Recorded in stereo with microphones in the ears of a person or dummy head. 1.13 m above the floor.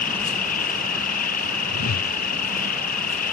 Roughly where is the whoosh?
Left.